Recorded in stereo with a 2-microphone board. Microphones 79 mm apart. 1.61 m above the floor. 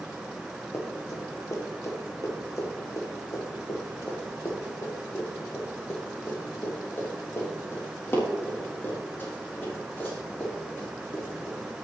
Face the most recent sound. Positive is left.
turn(degrees=25)  # may be behind; listen again after turning